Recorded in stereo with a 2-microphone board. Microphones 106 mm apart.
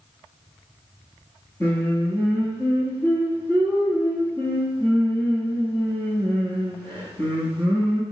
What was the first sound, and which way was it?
Singing, 20° left (ahead or behind).